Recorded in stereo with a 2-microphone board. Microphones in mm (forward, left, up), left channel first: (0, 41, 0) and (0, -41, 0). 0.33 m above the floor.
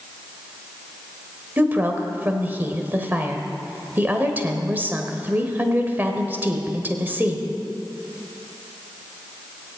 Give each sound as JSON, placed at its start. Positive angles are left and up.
{"t": 1.6, "sound": "a woman speaking", "side_deg": -25, "distance_m": 1.4}